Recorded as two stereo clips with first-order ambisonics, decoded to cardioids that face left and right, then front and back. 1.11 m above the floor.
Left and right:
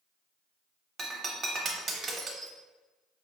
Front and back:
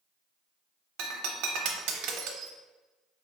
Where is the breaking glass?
155° right, 0.7 m.